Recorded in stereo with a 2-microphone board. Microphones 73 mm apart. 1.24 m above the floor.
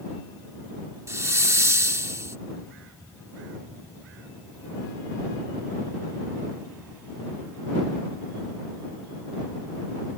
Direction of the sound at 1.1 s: 40° right (ahead or behind).